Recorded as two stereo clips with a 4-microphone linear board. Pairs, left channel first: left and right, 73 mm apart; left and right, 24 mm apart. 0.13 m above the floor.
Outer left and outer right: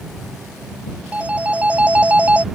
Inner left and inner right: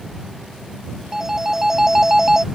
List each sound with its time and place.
1.1 s a phone ringing: 20° right (ahead or behind)